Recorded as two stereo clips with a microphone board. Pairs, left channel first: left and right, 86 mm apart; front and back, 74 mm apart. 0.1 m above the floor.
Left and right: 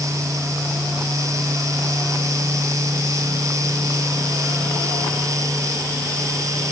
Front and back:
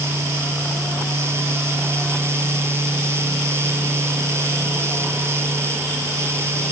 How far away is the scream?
I don't hear a scream.